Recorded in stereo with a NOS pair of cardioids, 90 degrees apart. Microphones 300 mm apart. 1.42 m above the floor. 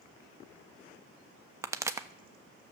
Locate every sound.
1.6 s a pop: 10° right, 0.8 m